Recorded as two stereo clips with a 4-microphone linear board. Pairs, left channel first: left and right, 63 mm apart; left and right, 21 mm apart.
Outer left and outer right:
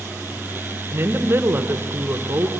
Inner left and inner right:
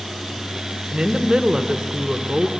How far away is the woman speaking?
About 1.3 m.